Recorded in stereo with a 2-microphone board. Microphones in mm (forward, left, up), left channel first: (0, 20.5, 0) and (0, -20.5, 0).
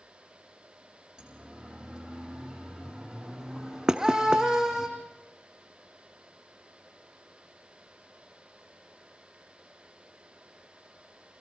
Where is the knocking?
20° right (ahead or behind), 0.8 m.